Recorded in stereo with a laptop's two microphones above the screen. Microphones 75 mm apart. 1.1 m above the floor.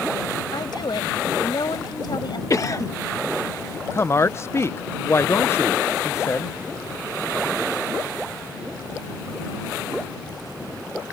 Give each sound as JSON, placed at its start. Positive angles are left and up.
{"t": 0.5, "sound": "a woman speaking", "side_deg": 65}
{"t": 2.5, "sound": "a cough", "side_deg": 45}
{"t": 3.9, "sound": "a woman speaking", "side_deg": 35}